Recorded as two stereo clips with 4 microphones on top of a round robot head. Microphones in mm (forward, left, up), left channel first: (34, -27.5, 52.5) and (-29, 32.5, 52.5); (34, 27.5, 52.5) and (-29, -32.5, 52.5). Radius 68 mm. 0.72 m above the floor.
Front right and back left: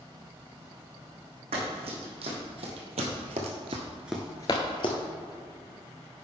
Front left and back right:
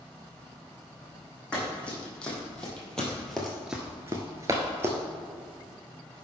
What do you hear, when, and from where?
1.5 s running footsteps: 120° left, 3 m; by 5.0 s 75° right, 1.2 m